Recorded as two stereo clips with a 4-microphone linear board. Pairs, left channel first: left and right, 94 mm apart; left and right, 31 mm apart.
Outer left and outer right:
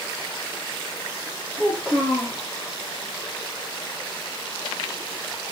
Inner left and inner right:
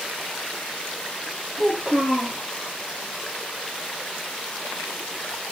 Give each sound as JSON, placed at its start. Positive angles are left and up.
{"t": 1.6, "sound": "a child speaking", "side_deg": 10, "distance_m": 6.5}